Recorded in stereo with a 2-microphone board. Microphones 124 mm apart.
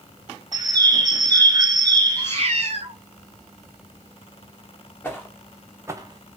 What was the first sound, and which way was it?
A bird, 35° right (ahead or behind).